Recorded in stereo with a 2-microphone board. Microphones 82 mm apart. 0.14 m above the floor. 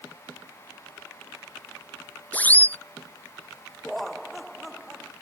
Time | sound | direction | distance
2.3 | a siren | 20° left (ahead or behind) | ?
3.8 | laughter | centre (ahead or behind) | ?